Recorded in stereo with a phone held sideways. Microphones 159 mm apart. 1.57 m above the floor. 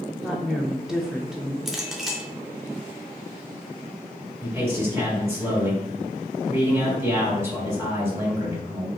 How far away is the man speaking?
About 1.8 m.